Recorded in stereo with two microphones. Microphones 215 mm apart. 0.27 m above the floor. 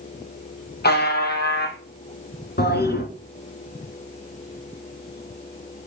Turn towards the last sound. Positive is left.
turn(degrees=50)  # may be behind; listen again after turning